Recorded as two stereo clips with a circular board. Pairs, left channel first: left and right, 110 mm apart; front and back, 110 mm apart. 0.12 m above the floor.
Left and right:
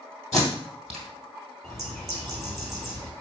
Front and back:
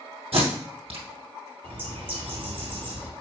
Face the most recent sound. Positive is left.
turn(degrees=175)